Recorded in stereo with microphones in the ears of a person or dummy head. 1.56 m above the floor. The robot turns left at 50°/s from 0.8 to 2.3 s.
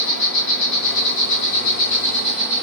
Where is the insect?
75° left, 2.0 m; by 2.6 s straight ahead, 2.0 m.